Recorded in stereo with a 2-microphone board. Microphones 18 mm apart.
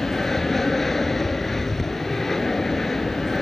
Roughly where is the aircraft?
Centre.